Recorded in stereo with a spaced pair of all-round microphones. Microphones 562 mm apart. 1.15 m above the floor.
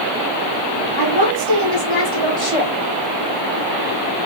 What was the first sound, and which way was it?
A woman speaking, 50° left (ahead or behind).